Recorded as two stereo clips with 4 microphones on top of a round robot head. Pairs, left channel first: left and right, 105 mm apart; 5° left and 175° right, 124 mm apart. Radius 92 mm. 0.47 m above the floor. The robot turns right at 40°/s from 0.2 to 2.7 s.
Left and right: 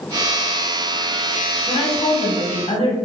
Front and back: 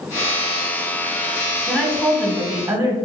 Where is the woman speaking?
70° left, 1.2 m; by 3.0 s 115° left, 1.2 m.